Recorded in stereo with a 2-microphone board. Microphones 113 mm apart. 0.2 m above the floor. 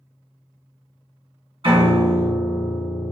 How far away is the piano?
About 1.7 m.